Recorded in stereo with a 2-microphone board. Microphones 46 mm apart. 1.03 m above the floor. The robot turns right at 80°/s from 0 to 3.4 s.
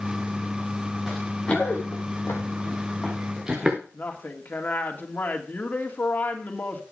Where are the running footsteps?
10° right (ahead or behind), 4.5 m; by 3.8 s 15° right (ahead or behind), 4 m.